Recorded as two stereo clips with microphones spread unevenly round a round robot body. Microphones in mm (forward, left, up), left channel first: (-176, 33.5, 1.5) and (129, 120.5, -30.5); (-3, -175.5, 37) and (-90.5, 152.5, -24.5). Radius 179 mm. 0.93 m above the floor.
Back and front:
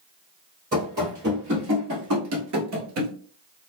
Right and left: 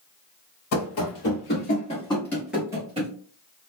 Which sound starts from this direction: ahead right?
Running footsteps, at 0.7 s.